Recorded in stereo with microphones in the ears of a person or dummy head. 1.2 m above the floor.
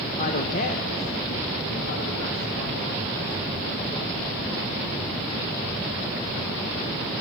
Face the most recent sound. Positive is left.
turn(degrees=60)  # may be behind; listen again after turning